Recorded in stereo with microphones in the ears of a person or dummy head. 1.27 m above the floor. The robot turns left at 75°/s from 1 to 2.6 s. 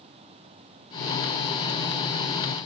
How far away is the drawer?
I don't hear a drawer.